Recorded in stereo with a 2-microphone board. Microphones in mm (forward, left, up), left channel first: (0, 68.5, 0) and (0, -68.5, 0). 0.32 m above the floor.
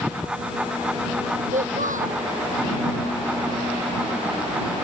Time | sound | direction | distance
1.5 | a child speaking | 85° right | ?